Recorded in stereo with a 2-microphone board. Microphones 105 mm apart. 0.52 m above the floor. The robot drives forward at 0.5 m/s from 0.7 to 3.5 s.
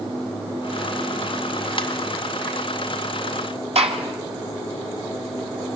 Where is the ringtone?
50° left (ahead or behind), 2 m.